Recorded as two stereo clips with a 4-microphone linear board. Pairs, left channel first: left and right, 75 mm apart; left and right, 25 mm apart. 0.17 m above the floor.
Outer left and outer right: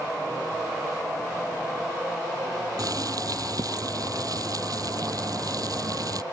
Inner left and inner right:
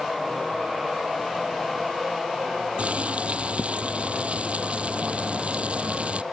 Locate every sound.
2.8 s boiling: 55° right (ahead or behind)